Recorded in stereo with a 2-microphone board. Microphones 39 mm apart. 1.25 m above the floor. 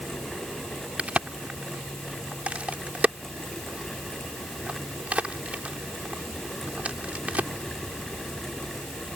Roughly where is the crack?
Right.